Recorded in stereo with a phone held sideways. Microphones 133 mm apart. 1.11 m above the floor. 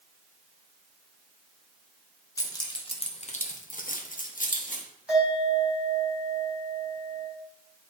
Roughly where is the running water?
I don't hear running water.